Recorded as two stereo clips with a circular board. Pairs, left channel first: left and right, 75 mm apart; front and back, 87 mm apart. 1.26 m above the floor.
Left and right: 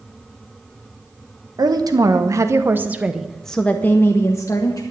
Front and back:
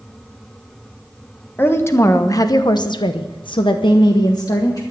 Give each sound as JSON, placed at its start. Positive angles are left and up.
{"t": 1.6, "sound": "a woman speaking", "azimuth_deg": -65, "distance_m": 1.4}